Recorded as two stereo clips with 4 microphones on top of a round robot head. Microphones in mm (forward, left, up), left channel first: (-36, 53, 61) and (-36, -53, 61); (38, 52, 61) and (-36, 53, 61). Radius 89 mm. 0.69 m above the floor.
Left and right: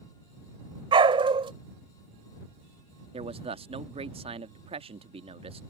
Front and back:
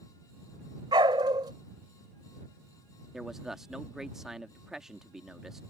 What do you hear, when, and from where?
0.9 s a dog barking: 130° right
3.1 s a man speaking: 95° right